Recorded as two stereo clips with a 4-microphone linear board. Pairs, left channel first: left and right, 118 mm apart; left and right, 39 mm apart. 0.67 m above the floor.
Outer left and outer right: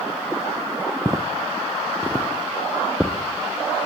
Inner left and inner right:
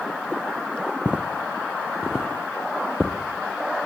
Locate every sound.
1.1 s footsteps: 30° right (ahead or behind), 2.5 m; by 3.9 s 5° left (ahead or behind), 3.5 m